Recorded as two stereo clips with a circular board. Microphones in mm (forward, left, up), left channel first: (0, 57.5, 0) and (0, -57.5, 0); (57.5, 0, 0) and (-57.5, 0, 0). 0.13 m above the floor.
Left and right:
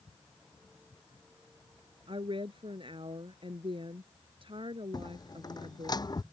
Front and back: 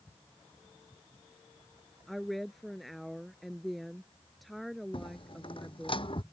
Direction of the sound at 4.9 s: 35° left.